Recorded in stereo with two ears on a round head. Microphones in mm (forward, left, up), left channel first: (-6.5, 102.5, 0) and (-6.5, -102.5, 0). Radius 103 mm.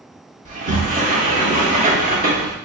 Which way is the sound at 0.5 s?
35° right (ahead or behind).